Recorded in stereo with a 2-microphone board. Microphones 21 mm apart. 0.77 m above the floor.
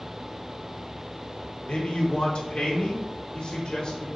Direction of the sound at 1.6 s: 60° left (ahead or behind).